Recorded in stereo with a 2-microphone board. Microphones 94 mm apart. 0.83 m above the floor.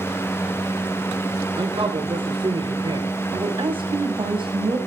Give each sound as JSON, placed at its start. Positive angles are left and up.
{"t": 1.6, "sound": "a man speaking", "side_deg": -70, "distance_m": 3.0}
{"t": 3.3, "sound": "a woman speaking", "side_deg": -60, "distance_m": 5.5}